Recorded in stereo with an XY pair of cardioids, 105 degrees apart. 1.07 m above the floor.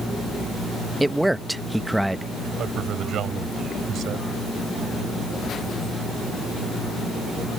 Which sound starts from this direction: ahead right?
A man speaking, at 2.6 s.